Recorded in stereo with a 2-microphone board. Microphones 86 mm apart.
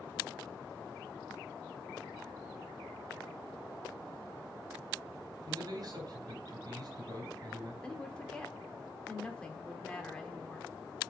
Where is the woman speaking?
10° left (ahead or behind), 1.1 m.